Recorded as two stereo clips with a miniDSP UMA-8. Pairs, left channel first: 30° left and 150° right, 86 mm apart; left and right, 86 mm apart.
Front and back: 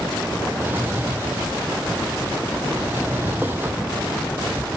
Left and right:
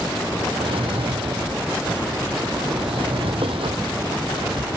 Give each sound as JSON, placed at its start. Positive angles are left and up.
{"t": 0.6, "sound": "a drawer", "azimuth_deg": -85}